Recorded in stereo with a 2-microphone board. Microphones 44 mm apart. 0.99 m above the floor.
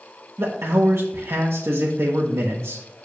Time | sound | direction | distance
0.4 | a man speaking | 75° right (ahead or behind) | 1.0 m